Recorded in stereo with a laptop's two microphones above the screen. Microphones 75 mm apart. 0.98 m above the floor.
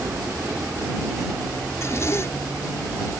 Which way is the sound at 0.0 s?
35° right (ahead or behind).